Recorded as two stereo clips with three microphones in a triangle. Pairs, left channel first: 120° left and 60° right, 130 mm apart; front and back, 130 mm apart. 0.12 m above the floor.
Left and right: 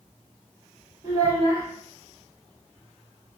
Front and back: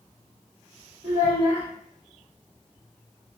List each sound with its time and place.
1.0 s a child speaking: 150° left, 1.5 m